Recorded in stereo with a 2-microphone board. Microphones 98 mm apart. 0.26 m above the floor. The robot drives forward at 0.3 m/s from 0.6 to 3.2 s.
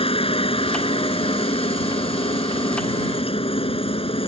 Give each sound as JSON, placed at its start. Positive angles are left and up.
{"t": 0.0, "sound": "a helicopter", "side_deg": 65}